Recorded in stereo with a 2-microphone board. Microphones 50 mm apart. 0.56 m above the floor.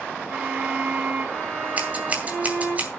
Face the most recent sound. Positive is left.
turn(degrees=-30)  # may be behind; listen again after turning